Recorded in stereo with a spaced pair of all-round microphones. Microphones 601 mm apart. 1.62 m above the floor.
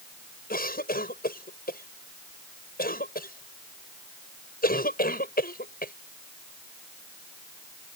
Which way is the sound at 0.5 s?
15° left (ahead or behind).